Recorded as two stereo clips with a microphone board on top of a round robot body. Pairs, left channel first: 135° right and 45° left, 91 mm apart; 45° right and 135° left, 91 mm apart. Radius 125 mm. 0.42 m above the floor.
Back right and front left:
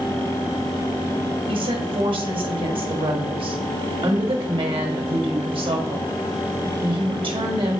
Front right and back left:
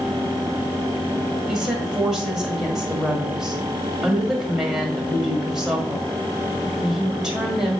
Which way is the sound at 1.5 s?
50° left.